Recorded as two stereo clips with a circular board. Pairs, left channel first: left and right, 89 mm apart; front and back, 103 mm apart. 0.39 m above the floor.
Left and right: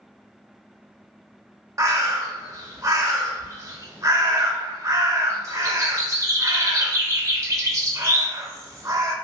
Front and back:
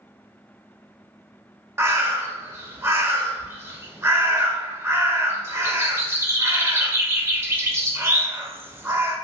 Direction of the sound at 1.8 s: 125° right.